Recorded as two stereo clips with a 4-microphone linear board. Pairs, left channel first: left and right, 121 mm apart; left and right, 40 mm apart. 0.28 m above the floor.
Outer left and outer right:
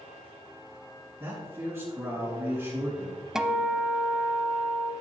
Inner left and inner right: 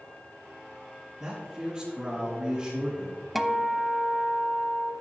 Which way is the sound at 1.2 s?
20° right (ahead or behind).